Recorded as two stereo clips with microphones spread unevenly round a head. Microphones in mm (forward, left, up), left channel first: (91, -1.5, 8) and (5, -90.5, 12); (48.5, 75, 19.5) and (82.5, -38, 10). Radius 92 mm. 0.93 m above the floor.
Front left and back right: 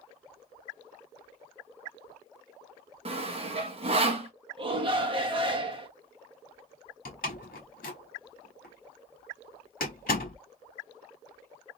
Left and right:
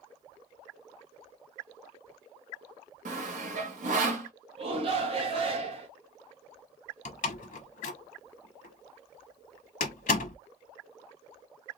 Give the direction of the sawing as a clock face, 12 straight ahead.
3 o'clock.